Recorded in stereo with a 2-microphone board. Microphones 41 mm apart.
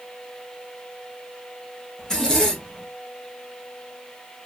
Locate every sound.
2.0 s a zipper: 15° left (ahead or behind), 1.1 m